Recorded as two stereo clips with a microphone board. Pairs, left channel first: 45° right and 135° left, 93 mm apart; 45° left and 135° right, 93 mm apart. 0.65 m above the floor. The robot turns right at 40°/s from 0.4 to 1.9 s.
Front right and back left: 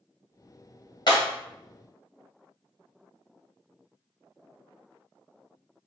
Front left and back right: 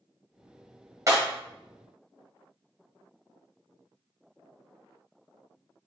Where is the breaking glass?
80° right, 1.8 m; by 1.2 s 75° right, 1.8 m.